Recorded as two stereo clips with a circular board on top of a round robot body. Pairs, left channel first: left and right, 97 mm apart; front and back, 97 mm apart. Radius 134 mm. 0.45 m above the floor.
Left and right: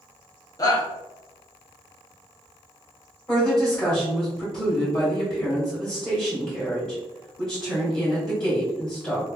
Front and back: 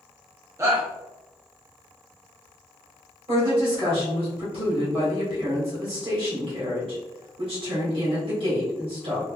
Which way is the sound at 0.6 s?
130° left.